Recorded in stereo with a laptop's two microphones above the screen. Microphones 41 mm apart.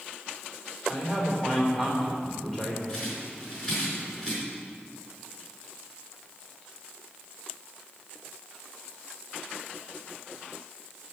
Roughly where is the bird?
Centre.